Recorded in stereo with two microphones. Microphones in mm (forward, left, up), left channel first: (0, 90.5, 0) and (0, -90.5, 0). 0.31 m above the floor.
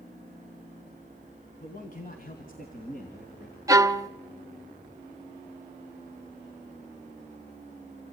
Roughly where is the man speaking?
Left.